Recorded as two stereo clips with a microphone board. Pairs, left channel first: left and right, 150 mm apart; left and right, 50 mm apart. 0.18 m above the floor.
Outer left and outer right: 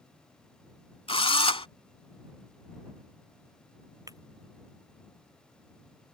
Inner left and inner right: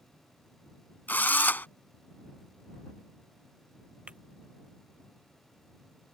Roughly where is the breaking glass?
Right.